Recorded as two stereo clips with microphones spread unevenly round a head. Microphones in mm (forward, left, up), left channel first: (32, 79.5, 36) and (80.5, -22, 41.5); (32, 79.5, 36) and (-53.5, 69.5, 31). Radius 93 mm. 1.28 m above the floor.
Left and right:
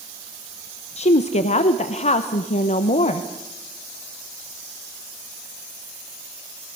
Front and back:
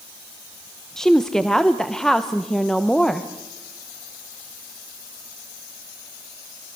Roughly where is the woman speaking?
Left.